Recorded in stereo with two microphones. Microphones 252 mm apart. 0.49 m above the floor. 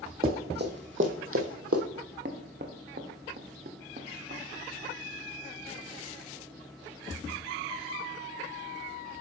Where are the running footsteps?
35° right (ahead or behind), 1.2 m; by 1.8 s 65° right (ahead or behind), 1.0 m.